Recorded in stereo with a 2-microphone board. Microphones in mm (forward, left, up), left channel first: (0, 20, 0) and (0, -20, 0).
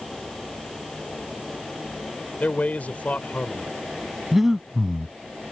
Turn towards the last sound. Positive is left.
turn(degrees=-10)  # may be behind; listen again after turning